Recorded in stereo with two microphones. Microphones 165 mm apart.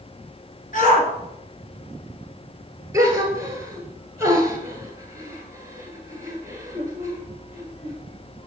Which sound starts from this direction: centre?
A gasp, at 2.9 s.